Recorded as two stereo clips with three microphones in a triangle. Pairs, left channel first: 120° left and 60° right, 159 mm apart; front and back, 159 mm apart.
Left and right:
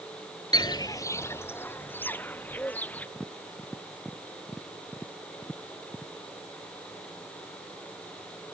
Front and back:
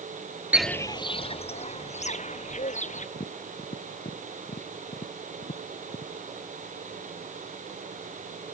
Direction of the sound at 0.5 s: 115° left.